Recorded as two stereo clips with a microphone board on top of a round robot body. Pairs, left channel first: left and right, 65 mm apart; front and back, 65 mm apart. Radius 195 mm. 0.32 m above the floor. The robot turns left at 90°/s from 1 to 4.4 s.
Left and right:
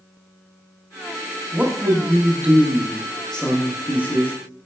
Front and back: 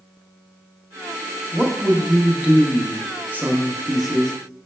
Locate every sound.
1.5 s a man speaking: 40° right, 0.9 m; by 4.3 s 65° left, 0.9 m